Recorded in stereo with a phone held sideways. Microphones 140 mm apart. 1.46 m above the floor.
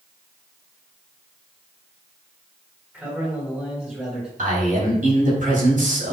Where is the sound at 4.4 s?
75° right (ahead or behind), 4 m.